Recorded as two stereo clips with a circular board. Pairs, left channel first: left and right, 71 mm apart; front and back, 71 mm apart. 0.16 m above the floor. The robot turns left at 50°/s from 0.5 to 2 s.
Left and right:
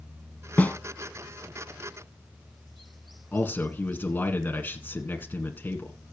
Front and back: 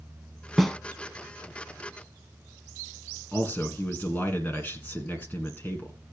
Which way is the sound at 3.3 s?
45° left.